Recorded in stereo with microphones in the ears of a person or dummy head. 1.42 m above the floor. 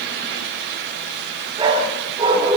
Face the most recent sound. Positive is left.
turn(degrees=-25)  # may be behind; listen again after turning